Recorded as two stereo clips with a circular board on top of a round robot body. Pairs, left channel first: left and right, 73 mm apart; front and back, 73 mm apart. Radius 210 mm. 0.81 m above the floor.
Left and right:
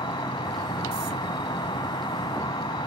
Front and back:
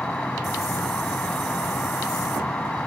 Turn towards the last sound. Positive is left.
turn(degrees=75)